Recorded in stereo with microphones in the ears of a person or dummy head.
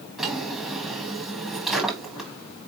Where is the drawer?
Centre (ahead or behind), 1.1 m.